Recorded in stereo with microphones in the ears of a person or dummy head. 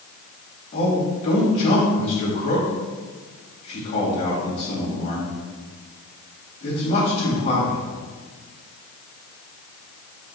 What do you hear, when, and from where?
0.7 s a man speaking: 40° left (ahead or behind), 2.5 m